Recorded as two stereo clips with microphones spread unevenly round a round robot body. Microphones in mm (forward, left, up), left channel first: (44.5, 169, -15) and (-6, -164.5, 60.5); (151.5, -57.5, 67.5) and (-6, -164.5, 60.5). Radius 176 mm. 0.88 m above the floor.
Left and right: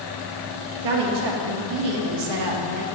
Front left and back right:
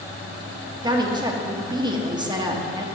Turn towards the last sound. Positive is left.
turn(degrees=-75)